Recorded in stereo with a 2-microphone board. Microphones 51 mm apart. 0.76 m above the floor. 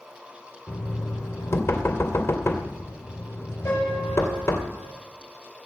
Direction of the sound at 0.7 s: 50° left (ahead or behind).